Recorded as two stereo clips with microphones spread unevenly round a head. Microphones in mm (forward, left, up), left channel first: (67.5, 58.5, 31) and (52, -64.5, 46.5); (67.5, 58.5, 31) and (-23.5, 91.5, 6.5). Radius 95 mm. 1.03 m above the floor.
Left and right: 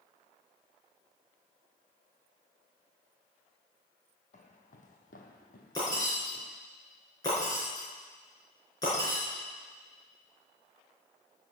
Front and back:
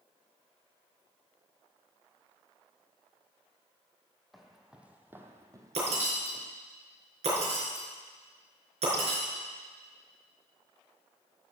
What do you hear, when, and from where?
4.3 s footsteps: 60° left, 2.0 m; by 6.5 s 120° left, 2 m
5.8 s breaking glass: 155° left, 4.5 m